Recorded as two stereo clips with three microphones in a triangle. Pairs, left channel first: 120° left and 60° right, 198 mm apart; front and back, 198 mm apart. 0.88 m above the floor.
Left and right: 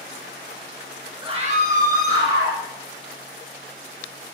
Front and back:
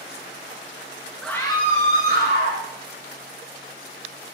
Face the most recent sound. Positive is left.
turn(degrees=-25)